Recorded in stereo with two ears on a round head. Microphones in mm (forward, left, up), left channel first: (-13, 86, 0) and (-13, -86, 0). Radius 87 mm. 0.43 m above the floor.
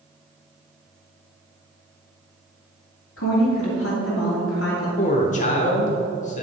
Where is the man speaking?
40° left (ahead or behind), 1.1 m.